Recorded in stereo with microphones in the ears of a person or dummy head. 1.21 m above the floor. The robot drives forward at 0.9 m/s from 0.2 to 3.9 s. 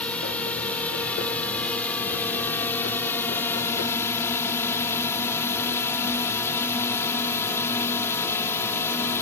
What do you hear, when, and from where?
0.0 s a drone: 10° left (ahead or behind); by 9.2 s 15° left (ahead or behind)